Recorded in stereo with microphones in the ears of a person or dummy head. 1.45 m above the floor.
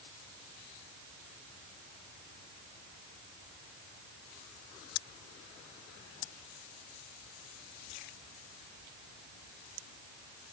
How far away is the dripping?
I don't hear dripping.